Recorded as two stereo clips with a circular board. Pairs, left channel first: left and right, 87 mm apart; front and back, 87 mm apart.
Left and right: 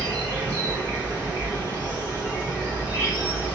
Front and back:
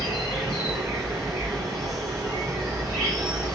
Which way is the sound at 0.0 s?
155° right.